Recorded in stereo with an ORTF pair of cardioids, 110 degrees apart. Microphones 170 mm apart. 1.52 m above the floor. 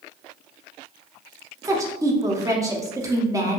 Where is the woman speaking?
20° right, 0.8 m.